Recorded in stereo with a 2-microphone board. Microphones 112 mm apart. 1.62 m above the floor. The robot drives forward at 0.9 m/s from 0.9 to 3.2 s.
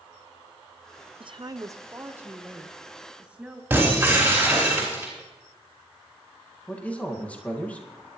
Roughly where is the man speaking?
Centre.